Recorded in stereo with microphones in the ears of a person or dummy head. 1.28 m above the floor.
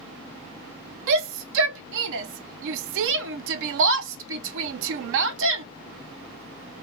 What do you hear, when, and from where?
1.1 s a shout: 70° right (ahead or behind), 0.5 m